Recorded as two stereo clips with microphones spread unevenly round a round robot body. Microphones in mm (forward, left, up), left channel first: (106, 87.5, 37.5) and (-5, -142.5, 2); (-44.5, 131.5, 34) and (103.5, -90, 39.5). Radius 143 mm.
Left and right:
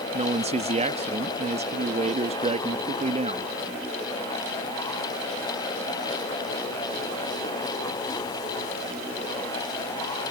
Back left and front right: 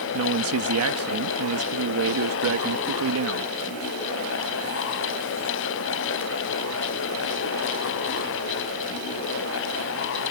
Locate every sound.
0.1 s a man speaking: 60° right